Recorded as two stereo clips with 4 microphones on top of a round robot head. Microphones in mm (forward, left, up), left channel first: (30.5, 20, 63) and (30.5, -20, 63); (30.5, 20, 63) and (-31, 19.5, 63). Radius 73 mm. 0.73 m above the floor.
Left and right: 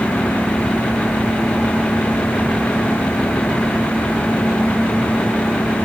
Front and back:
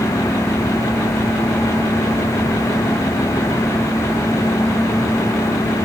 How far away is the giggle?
No giggle in this recording.